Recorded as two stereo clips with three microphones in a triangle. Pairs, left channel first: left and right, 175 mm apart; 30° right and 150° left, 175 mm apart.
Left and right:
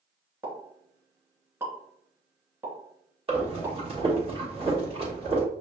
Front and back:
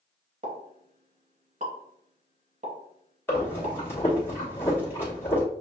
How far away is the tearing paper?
No tearing paper in this recording.